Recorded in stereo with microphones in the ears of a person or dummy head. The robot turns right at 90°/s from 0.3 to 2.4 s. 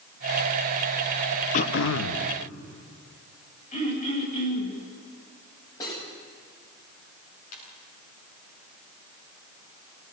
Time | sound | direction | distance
1.5 | throat clearing | 45° left | 1.2 m
3.7 | throat clearing | 40° left (ahead or behind) | 8 m
5.8 | cutlery clinking | 25° left (ahead or behind) | 7 m
7.5 | a ringtone | 55° left (ahead or behind) | 9.5 m